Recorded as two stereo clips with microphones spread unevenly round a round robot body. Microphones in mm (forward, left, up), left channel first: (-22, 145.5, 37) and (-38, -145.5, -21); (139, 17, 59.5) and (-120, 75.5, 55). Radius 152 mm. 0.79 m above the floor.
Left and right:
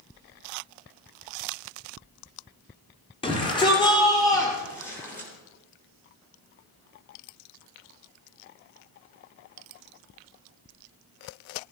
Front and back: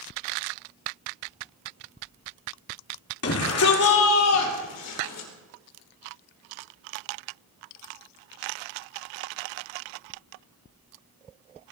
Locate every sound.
3.2 s a shout: 10° left, 2.5 m; by 5.3 s straight ahead, 3.5 m